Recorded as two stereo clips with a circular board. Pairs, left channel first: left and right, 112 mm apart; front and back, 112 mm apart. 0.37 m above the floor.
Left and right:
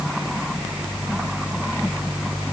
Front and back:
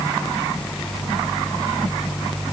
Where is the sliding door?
No sliding door in this recording.